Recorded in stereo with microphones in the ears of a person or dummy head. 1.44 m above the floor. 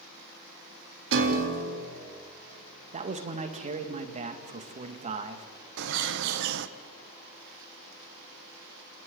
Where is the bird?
65° right (ahead or behind), 0.7 m.